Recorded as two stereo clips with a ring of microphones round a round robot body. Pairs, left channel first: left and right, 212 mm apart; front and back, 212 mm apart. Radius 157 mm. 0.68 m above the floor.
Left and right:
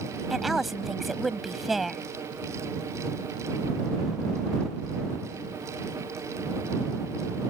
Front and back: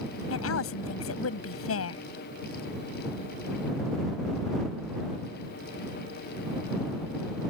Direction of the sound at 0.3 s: Straight ahead.